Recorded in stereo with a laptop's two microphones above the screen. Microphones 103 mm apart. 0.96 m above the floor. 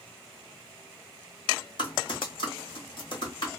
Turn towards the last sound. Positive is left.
turn(degrees=55)  # may be behind; listen again after turning